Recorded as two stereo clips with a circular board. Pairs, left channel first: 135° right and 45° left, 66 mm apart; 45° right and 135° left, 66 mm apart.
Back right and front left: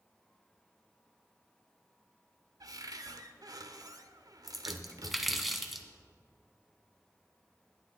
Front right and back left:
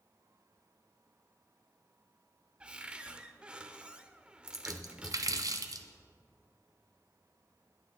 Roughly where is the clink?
No clink in this recording.